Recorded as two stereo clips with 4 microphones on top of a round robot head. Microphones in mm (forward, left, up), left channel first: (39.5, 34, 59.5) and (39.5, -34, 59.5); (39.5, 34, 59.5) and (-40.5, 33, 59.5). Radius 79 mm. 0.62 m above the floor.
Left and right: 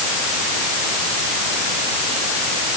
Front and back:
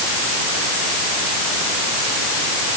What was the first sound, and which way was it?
Only background noise.